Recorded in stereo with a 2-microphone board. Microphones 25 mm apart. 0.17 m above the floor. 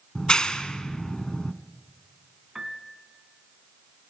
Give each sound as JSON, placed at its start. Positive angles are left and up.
{"t": 0.1, "sound": "a clap", "side_deg": 35, "distance_m": 1.0}
{"t": 2.5, "sound": "a piano", "side_deg": -15, "distance_m": 1.5}